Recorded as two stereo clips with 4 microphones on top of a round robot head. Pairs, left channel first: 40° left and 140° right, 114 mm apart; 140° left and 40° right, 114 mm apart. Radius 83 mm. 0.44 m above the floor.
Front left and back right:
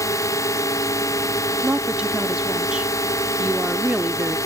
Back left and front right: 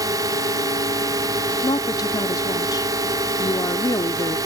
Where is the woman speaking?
145° left.